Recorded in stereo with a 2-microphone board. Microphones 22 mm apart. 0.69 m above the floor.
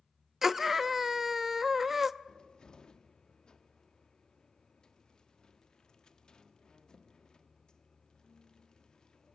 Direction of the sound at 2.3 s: 40° left (ahead or behind).